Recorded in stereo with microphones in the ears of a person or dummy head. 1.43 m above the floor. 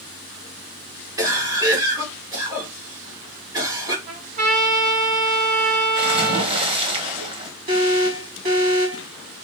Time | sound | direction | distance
1.2 | a cough | 20° right (ahead or behind) | 2 m
4.1 | a trumpet | 40° right (ahead or behind) | 2.5 m
6.0 | a splash | 25° right (ahead or behind) | 0.9 m
7.7 | an alarm | 40° right (ahead or behind) | 1.7 m